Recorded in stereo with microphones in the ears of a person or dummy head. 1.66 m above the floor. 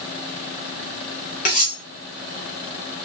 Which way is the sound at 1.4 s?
30° left (ahead or behind).